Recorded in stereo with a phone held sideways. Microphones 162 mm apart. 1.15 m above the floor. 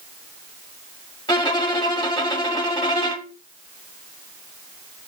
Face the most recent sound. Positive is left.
turn(degrees=25)  # may be behind; listen again after turning